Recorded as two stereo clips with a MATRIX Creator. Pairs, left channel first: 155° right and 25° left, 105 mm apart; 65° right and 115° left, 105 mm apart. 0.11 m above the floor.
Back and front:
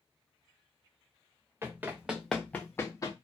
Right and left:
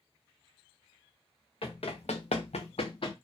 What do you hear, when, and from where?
1.6 s running footsteps: 45° right, 0.8 m; by 3.1 s 105° right, 0.8 m